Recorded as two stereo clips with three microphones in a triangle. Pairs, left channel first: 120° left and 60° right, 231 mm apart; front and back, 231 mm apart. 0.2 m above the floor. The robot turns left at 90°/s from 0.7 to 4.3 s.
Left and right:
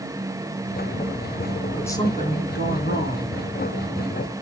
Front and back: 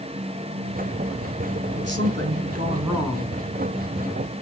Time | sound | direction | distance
1.8 | a woman speaking | 150° right | 2.5 m